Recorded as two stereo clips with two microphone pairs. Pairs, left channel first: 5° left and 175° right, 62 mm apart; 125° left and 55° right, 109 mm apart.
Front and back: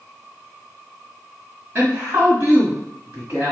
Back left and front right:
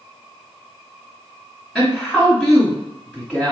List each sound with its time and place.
1.8 s a woman speaking: 140° right, 1.5 m